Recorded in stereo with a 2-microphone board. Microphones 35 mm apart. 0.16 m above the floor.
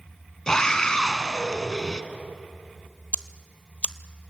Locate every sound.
0.5 s a scream: 20° left (ahead or behind), 1.2 m
3.1 s ticking: 45° left (ahead or behind), 0.6 m